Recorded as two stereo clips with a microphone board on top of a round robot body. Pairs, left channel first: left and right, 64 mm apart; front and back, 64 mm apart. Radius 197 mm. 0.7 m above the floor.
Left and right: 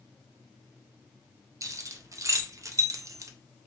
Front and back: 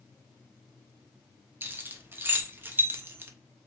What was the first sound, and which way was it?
Keys jangling, 125° right.